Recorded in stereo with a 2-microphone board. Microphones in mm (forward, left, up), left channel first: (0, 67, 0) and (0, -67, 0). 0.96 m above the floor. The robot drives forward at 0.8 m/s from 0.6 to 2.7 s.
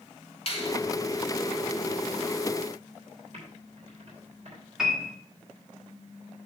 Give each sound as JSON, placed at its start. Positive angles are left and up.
{"t": 0.5, "sound": "a finger snap", "side_deg": 45, "distance_m": 1.5}
{"t": 3.3, "sound": "typing on a keyboard", "side_deg": -55, "distance_m": 3.0}
{"t": 4.8, "sound": "a piano", "side_deg": -5, "distance_m": 1.6}